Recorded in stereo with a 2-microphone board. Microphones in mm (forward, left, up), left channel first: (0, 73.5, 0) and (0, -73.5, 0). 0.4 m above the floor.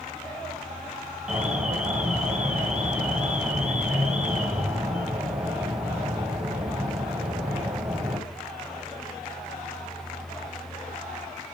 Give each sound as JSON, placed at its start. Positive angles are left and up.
{"t": 1.3, "sound": "an alarm", "side_deg": -10, "distance_m": 3.0}